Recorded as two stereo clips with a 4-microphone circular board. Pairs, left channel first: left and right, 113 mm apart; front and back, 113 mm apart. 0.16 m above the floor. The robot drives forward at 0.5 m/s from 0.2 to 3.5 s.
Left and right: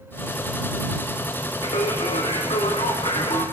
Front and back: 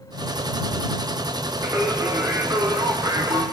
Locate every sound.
1.6 s singing: 115° left, 4 m; by 3.4 s 125° left, 4.5 m